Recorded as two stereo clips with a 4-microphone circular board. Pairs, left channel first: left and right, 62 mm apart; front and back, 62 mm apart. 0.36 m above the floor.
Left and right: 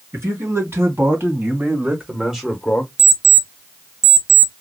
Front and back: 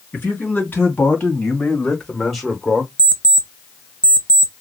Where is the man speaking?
60° right, 3 m; by 2.9 s 125° left, 1.2 m.